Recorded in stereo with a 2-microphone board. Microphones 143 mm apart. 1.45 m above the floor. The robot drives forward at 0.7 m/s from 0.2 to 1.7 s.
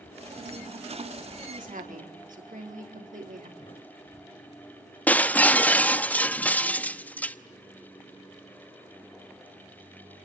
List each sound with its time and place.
1.4 s a woman speaking: 75° right (ahead or behind), 4.5 m; by 3.5 s 80° right, 4.5 m
3.6 s a thud: 55° left (ahead or behind), 4.5 m
5.1 s breaking glass: 10° left (ahead or behind), 0.9 m